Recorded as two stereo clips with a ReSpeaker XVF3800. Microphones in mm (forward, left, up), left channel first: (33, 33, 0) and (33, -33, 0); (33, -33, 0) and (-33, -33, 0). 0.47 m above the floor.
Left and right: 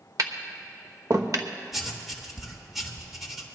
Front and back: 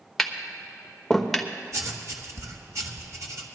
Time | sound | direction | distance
0.2 | tapping | 85° right | 1.0 m
1.7 | writing | straight behind | 1.5 m